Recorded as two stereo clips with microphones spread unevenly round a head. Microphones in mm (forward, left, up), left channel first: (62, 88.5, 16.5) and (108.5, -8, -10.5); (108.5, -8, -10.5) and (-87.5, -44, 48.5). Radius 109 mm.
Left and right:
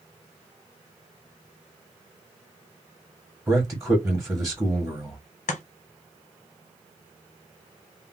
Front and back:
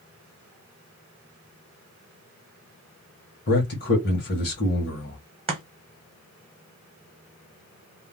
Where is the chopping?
120° left, 0.8 m.